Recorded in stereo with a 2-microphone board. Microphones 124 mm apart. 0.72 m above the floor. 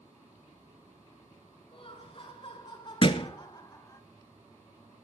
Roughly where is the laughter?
Left.